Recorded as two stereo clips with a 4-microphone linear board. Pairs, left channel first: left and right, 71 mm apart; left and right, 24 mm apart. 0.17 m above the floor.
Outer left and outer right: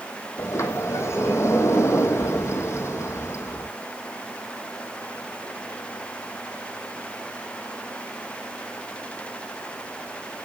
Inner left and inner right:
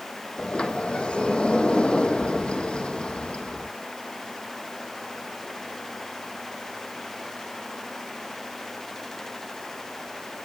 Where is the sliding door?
45° left (ahead or behind), 1.3 m.